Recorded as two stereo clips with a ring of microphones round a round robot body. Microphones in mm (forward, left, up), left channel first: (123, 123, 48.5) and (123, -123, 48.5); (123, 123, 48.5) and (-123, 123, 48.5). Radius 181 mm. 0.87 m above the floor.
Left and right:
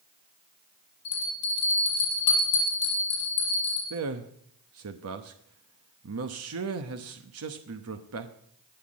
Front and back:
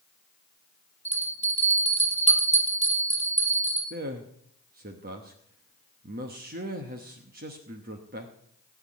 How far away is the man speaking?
About 0.9 m.